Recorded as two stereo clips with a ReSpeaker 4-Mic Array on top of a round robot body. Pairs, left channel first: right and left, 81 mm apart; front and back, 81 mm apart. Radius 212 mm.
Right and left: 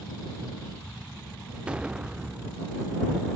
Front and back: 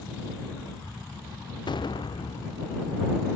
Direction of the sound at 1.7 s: 15° left.